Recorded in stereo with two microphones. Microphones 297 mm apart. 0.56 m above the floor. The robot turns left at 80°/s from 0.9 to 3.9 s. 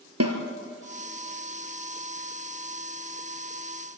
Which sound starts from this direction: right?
A snare drum, at 0.2 s.